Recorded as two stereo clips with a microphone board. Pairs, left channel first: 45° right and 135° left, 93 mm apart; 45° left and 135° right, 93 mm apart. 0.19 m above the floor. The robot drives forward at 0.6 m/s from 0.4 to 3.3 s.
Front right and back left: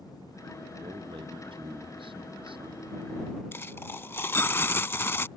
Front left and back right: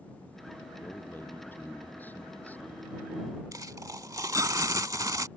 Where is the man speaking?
110° left; by 2.9 s 120° left.